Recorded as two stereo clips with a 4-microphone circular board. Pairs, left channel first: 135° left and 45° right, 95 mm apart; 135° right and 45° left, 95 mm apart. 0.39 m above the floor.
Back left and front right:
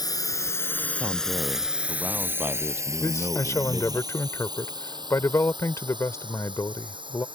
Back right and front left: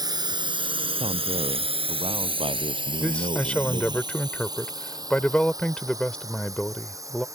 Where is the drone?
90° left; by 7.3 s 10° right.